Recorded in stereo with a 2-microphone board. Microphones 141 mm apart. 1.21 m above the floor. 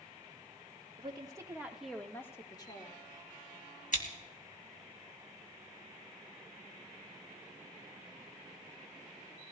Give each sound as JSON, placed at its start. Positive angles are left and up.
{"t": 1.0, "sound": "a woman speaking", "side_deg": -40, "distance_m": 1.7}
{"t": 3.9, "sound": "scissors", "side_deg": 65, "distance_m": 2.0}